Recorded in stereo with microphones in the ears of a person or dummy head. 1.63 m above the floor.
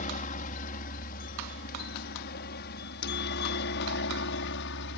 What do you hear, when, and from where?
0.0 s a helicopter: 45° left (ahead or behind); by 5.0 s 65° left (ahead or behind)